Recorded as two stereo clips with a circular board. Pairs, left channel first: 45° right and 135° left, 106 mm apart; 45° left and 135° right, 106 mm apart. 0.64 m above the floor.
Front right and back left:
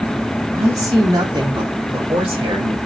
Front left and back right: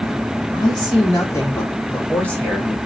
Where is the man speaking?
80° left, 1.6 m; by 2.8 s 130° left, 2 m.